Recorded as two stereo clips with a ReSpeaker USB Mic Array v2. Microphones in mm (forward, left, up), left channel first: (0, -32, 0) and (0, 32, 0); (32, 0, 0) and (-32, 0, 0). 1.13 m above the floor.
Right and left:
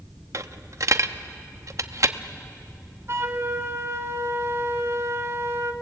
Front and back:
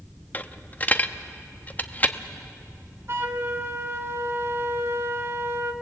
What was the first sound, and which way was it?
A dropped coin, 60° left.